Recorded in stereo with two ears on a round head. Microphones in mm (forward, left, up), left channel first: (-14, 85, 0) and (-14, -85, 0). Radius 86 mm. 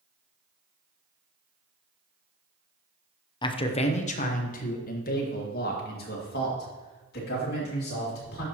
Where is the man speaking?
25° left (ahead or behind), 0.7 m; by 8.4 s 60° left (ahead or behind), 3.5 m.